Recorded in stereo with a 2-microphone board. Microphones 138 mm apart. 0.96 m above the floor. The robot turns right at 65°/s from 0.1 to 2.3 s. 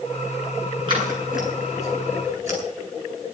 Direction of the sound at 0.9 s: 35° right (ahead or behind).